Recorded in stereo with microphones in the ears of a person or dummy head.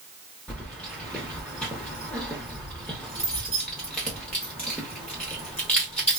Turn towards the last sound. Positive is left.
turn(degrees=5)  # may be behind; listen again after turning